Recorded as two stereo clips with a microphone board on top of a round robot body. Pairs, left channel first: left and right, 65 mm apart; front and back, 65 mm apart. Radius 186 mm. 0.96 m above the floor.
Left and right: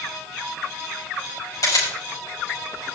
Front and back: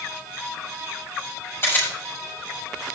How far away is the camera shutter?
About 6 m.